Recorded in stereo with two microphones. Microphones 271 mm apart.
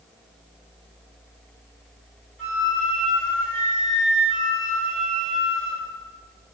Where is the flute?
45° right (ahead or behind), 1.1 m.